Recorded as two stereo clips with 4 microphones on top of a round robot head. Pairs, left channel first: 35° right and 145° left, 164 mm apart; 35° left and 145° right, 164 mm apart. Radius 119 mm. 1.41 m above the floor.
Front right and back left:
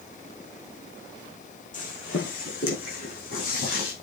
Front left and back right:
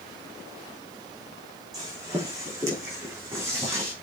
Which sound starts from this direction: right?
Footsteps, at 1.7 s.